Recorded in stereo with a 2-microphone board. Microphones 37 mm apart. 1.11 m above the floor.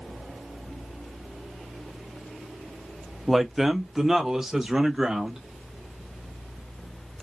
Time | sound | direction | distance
3.3 | a man speaking | 5° right (ahead or behind) | 0.5 m